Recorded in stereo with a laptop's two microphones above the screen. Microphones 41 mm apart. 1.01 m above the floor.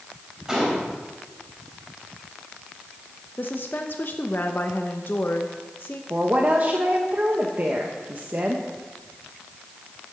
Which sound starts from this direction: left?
A woman speaking, at 3.4 s.